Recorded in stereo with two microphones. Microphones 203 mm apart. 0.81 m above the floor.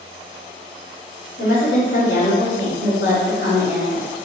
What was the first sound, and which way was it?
A woman speaking, 65° left (ahead or behind).